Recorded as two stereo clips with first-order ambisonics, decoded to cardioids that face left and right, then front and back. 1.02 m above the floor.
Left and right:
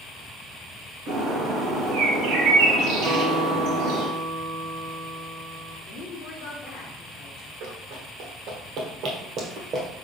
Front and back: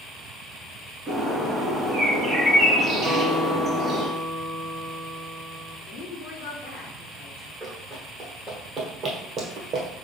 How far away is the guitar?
About 1.1 m.